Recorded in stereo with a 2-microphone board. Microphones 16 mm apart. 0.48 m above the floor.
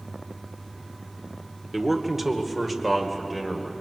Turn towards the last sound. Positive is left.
turn(degrees=-5)  # may be behind; listen again after turning